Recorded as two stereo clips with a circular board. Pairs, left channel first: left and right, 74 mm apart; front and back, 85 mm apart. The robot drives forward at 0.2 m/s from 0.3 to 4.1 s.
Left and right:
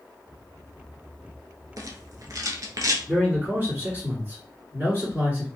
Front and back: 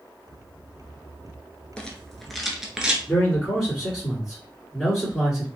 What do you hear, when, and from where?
1.8 s a rattle: 75° right, 0.6 m; by 3.0 s 100° right, 0.6 m
3.1 s a man speaking: 80° right, 1.8 m; by 5.5 s 95° right, 1.8 m